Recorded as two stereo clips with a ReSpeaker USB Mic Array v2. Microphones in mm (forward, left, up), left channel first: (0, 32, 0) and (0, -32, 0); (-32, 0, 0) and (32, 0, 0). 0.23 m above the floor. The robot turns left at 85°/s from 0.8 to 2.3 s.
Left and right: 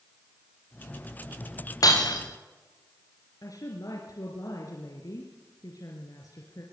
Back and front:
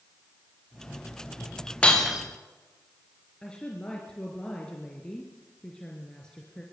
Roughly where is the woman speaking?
Left.